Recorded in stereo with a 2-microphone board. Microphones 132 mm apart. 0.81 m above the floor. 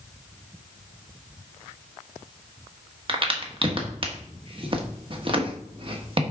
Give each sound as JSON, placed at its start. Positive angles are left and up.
{"t": 3.1, "sound": "a crack", "side_deg": -40, "distance_m": 1.1}